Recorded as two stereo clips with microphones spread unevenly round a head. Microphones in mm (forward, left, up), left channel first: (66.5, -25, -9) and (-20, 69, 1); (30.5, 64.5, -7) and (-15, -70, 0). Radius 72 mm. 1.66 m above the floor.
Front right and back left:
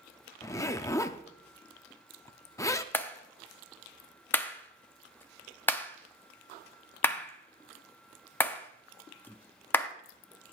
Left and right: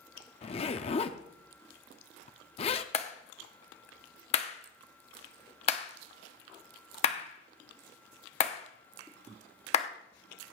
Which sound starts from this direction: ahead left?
A clap, at 2.9 s.